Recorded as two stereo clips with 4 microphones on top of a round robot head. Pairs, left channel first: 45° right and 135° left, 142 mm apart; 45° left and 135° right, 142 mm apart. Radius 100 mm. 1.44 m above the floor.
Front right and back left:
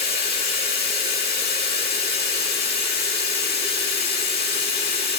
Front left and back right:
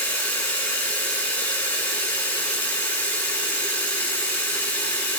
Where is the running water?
35° right, 10 m.